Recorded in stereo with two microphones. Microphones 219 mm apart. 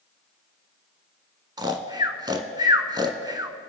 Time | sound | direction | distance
1.6 | snoring | 20° right (ahead or behind) | 0.8 m